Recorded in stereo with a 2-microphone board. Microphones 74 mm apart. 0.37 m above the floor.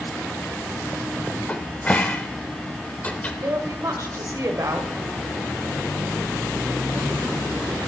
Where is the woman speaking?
50° right (ahead or behind), 1.1 m.